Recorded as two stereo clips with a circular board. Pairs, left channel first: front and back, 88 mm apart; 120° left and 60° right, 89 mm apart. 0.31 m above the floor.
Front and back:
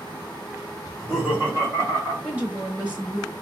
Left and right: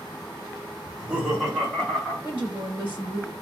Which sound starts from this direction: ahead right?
Laughter, at 0.9 s.